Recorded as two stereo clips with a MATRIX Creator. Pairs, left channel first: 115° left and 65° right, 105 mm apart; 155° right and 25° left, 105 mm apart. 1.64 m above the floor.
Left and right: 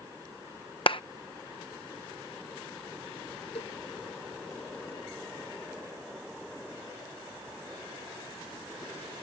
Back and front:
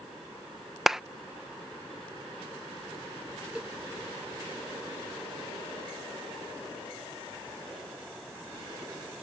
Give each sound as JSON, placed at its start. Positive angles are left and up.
{"t": 0.9, "sound": "a clap", "azimuth_deg": 110}
{"t": 3.5, "sound": "a cowbell", "azimuth_deg": 105}